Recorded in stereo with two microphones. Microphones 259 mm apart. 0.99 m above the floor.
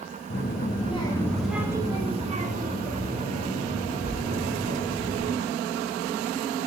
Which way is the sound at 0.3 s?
45° left (ahead or behind).